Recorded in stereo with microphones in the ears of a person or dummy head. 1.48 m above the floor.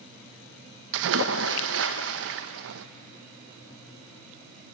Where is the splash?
65° right (ahead or behind), 1.0 m.